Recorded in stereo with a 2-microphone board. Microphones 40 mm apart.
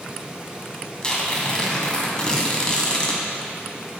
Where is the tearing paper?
20° left (ahead or behind), 1.3 m.